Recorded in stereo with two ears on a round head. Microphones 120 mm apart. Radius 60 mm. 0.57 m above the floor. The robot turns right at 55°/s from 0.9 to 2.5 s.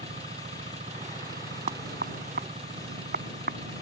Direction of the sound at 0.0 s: 130° right.